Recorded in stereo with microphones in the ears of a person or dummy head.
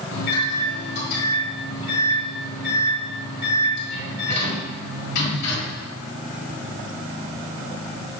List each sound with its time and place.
0.1 s a microwave: 60° left (ahead or behind), 1.8 m